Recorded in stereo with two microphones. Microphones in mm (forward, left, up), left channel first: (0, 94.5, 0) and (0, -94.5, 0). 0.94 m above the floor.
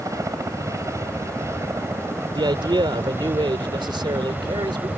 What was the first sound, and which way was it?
A helicopter, 15° right (ahead or behind).